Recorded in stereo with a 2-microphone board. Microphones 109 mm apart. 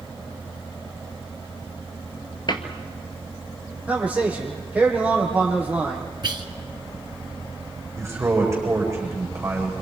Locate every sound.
2.5 s a cupboard door: 50° left (ahead or behind), 2 m
3.9 s a man speaking: 15° right (ahead or behind), 7.5 m
6.2 s whispering: 50° right (ahead or behind), 2 m
8.0 s a man speaking: 25° right (ahead or behind), 9 m